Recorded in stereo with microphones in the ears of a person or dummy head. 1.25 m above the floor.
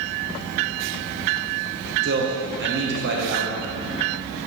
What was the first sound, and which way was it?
A man speaking, 55° right (ahead or behind).